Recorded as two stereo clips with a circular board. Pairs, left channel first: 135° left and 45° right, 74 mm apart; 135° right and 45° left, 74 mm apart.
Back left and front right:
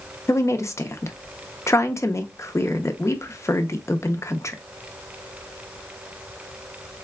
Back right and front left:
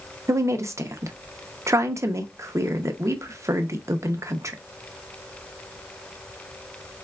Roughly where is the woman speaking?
Left.